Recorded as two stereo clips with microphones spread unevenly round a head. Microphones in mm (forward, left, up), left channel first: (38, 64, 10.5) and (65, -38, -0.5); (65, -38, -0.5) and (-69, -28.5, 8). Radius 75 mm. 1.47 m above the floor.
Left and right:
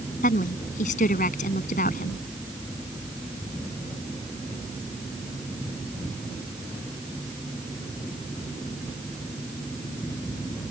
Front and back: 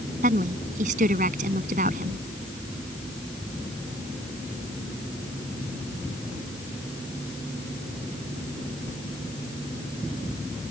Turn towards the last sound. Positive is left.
turn(degrees=130)